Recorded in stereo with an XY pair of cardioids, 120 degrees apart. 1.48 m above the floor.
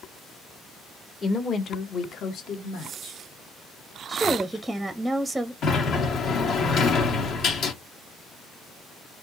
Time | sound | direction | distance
1.2 | a woman speaking | 30° left | 0.9 m
4.1 | a woman speaking | 10° right | 0.6 m
5.6 | a sliding door | 65° left | 1.5 m